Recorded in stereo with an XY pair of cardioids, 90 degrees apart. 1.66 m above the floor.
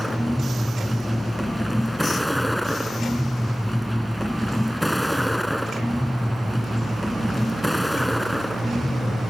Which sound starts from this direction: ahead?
A vehicle, at 0.0 s.